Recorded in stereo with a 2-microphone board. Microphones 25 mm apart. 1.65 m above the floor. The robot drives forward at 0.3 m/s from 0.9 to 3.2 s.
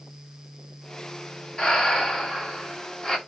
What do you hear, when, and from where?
1.6 s breathing: 30° left (ahead or behind), 1.3 m; by 3.2 s 25° left (ahead or behind), 1.4 m